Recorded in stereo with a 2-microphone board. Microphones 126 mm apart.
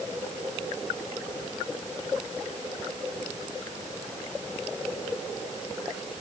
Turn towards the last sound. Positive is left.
No sound to turn to.